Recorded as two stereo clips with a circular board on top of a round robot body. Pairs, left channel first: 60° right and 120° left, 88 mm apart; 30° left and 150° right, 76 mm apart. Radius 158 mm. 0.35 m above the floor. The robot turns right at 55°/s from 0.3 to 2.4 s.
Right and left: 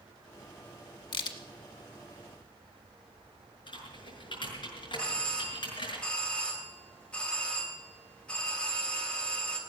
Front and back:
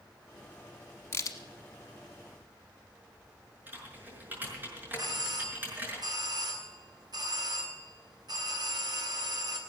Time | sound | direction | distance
1.1 | a crack | 30° right | 1.1 m
3.7 | typing on a keyboard | 85° right | 6 m
5.0 | a doorbell | 135° right | 3 m